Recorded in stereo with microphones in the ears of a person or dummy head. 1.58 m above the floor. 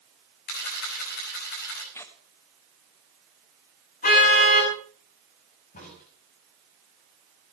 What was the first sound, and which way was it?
A camera shutter, 55° left (ahead or behind).